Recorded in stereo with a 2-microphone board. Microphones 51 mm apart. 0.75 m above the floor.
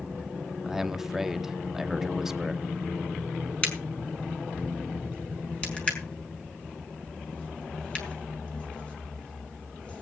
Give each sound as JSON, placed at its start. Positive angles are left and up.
{"t": 0.6, "sound": "a man speaking", "side_deg": -10, "distance_m": 1.0}
{"t": 3.6, "sound": "a crack", "side_deg": 25, "distance_m": 5.0}